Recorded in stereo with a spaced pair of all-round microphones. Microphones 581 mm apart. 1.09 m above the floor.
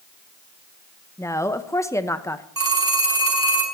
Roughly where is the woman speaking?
Centre.